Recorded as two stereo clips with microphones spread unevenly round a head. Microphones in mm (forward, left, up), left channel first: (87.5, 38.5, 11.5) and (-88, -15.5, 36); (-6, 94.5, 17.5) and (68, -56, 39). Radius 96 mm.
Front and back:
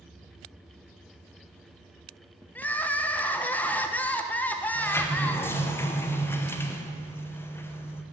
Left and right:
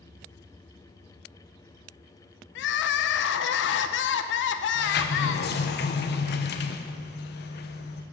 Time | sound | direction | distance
2.5 | crying | 100° left | 0.6 m
4.8 | a sliding door | 95° left | 0.8 m